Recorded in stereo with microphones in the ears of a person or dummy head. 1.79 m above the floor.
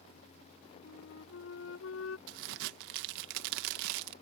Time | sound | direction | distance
0.8 | a flute | 80° left | ?
2.3 | a crack | 60° right (ahead or behind) | ?